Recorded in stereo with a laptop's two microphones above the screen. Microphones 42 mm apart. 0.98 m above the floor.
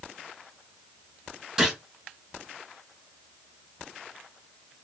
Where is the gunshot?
15° right (ahead or behind), 4 m.